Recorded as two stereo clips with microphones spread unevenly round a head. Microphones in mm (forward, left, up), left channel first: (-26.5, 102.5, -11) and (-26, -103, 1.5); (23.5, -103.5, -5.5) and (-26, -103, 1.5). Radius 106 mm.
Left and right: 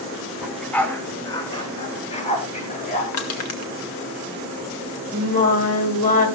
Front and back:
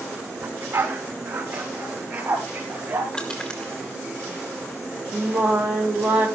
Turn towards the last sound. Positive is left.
turn(degrees=140)